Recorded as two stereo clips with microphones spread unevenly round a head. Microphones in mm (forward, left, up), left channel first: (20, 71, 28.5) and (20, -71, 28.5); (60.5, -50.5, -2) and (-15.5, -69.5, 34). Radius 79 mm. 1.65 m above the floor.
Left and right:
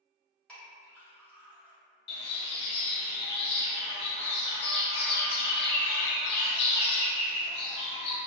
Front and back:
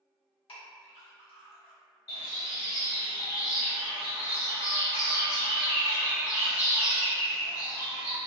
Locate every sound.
0.5 s a clink: 10° left, 1.9 m
2.1 s a bird: 90° left, 0.8 m